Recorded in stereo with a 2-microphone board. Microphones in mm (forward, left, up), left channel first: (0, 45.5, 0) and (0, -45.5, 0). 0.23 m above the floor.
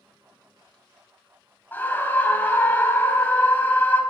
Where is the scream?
20° left (ahead or behind), 1.1 m.